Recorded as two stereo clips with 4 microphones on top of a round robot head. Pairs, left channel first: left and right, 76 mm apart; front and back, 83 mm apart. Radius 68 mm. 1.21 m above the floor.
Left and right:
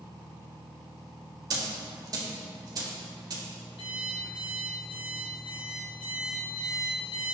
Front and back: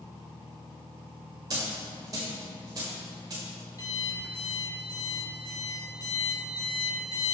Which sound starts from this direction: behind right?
A dropped coin, at 1.5 s.